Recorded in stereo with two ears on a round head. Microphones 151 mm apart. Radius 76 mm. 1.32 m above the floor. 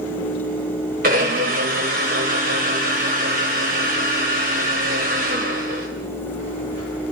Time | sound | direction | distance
1.0 | a blender | 50° right (ahead or behind) | 4.5 m